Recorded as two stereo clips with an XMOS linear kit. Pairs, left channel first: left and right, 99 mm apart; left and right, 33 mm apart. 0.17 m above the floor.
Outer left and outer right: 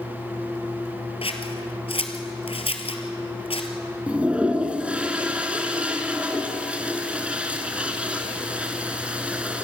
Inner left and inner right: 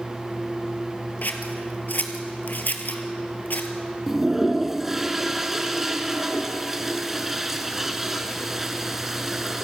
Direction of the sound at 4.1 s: 15° right (ahead or behind).